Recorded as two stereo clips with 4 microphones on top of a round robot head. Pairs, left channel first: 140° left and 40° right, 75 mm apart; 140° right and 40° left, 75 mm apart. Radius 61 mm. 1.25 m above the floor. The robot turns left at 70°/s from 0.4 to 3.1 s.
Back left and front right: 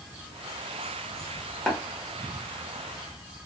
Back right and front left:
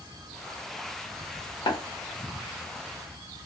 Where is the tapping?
140° right, 1.0 m; by 1.8 s 150° right, 1.0 m.